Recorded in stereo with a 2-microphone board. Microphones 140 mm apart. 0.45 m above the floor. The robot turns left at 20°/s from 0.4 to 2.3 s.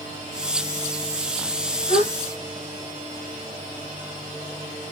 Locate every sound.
1.9 s a gasp: 45° right (ahead or behind), 2.5 m; by 2.1 s 50° right (ahead or behind), 2.5 m